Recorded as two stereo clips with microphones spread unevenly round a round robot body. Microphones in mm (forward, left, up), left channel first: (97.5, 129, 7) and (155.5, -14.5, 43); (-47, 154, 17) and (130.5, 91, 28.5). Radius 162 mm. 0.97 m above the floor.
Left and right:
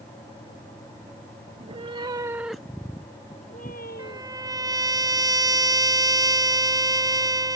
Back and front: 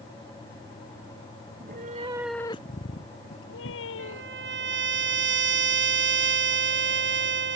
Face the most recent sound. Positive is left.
turn(degrees=-5)